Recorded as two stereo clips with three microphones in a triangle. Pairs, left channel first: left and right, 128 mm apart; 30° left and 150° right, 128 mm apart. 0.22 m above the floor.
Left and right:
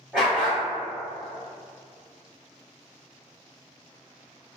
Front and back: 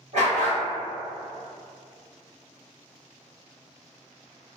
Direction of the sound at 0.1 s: 175° right.